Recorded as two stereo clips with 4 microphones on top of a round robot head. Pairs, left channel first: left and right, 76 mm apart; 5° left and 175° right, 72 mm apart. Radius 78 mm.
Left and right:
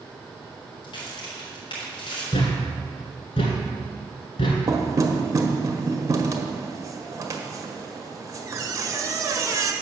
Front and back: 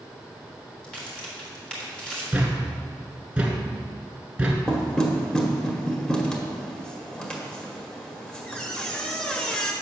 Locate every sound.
0.8 s a crack: 80° left, 3.5 m
2.3 s a thud: 110° left, 1.5 m
4.7 s knocking: 70° right, 1.2 m